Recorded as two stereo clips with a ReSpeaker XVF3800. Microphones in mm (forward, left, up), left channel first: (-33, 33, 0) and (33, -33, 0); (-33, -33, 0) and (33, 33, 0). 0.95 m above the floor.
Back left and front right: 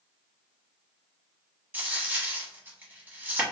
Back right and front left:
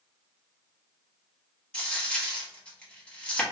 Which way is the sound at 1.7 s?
75° right.